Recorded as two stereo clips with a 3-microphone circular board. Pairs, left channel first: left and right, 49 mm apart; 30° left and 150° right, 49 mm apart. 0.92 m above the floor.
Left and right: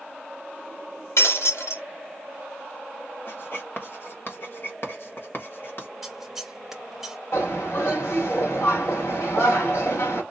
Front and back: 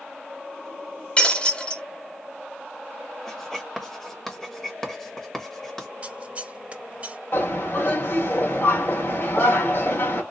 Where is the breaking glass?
95° left, 1.3 m.